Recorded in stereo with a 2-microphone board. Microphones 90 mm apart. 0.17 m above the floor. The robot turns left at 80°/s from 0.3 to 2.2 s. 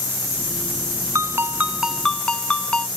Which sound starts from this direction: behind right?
A ringtone, at 1.1 s.